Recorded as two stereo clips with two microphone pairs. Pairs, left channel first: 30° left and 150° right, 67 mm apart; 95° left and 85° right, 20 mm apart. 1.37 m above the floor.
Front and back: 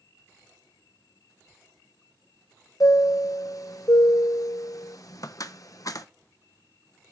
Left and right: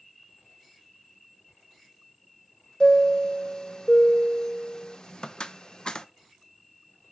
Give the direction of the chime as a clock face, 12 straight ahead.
10 o'clock.